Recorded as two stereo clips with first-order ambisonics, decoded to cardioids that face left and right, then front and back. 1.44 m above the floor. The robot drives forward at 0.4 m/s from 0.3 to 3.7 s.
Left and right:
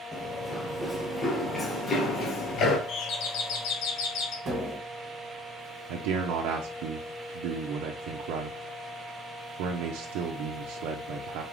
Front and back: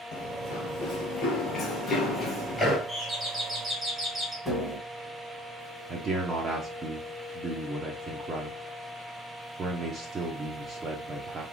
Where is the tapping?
105° right, 1.4 m.